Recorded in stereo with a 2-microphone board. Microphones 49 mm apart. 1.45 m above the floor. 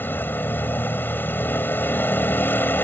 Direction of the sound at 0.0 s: 45° left (ahead or behind).